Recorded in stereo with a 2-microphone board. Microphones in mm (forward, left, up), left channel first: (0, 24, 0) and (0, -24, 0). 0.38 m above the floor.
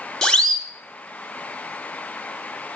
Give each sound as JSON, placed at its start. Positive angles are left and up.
{"t": 0.2, "sound": "a siren", "side_deg": 10, "distance_m": 2.5}